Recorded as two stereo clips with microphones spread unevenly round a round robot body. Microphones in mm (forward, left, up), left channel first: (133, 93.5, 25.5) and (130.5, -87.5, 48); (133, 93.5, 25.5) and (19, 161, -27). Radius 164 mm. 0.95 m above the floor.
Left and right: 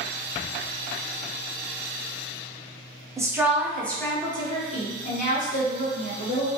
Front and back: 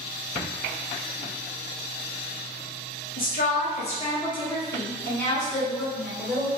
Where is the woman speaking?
15° right, 1.1 m; by 6.5 s 85° left, 1.7 m.